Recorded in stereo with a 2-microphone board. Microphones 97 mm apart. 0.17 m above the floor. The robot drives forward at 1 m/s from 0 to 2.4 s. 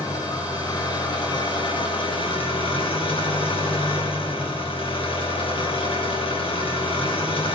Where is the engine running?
40° left (ahead or behind), 4 m; by 7.6 s 70° left (ahead or behind), 3 m.